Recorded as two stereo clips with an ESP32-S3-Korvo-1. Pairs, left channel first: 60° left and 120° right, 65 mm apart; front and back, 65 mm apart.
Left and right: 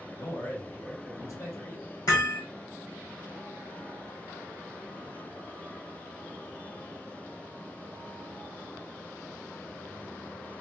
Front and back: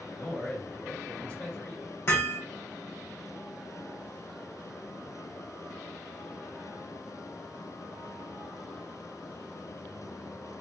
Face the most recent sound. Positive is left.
turn(degrees=50)